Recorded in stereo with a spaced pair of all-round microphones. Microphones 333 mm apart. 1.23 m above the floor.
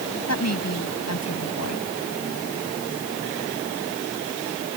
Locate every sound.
0.3 s a woman speaking: 50° left (ahead or behind)